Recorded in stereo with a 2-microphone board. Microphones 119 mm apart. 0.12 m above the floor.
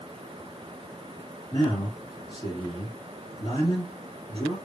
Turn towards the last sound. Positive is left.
turn(degrees=40)  # may be behind; listen again after turning